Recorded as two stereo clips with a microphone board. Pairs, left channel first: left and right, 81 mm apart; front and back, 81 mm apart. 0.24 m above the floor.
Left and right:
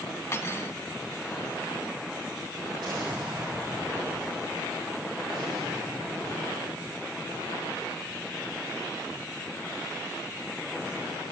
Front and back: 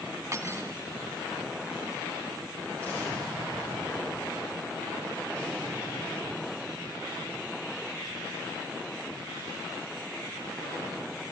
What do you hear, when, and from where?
0.3 s cutlery clinking: 135° left, 1.1 m
2.8 s an explosion: 75° right, 7.5 m